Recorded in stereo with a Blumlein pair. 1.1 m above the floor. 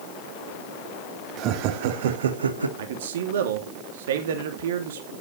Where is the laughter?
35° right, 2.5 m; by 2.7 s 80° right, 1.8 m.